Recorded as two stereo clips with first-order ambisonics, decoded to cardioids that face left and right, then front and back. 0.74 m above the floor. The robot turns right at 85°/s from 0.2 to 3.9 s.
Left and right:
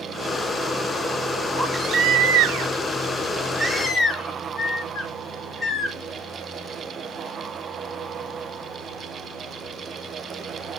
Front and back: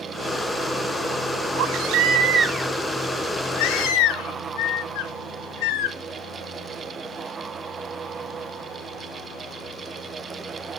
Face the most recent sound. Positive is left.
turn(degrees=20)